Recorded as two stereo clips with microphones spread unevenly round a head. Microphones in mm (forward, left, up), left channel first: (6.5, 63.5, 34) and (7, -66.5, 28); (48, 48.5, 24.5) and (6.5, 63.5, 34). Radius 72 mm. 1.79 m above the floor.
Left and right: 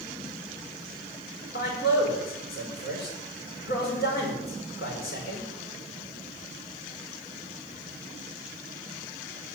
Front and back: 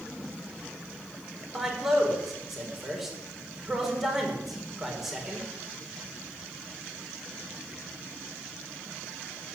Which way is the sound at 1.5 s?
75° left.